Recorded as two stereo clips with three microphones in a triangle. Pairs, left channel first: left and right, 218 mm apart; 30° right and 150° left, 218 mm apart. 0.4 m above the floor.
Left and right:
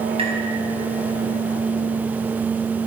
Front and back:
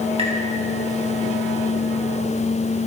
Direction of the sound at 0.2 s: 150° right.